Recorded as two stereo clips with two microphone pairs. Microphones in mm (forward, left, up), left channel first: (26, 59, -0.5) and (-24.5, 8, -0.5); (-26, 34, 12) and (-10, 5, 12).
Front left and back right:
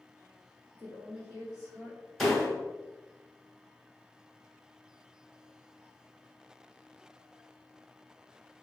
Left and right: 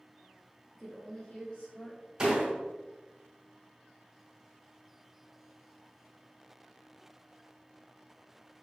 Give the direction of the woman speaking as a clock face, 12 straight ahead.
5 o'clock.